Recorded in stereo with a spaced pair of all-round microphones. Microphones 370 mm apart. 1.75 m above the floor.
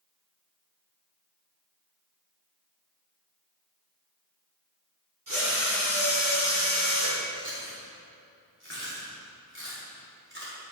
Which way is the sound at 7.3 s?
30° right (ahead or behind).